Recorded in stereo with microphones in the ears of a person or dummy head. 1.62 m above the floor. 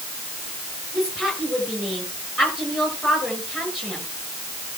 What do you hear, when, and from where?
0.9 s a woman speaking: centre (ahead or behind), 7 m